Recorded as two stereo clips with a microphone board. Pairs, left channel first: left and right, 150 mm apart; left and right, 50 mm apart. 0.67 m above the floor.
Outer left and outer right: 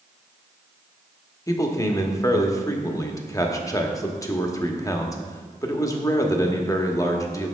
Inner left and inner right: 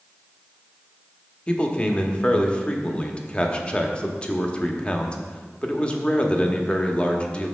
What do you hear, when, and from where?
1.5 s a man speaking: 20° left (ahead or behind), 0.9 m